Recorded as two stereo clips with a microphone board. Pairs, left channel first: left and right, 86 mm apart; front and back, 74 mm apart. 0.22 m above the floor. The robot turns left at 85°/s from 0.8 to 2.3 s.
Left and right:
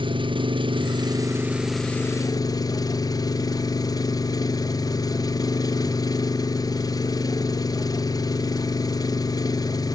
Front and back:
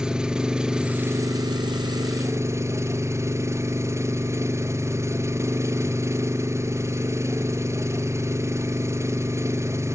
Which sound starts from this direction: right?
An engine running, at 0.0 s.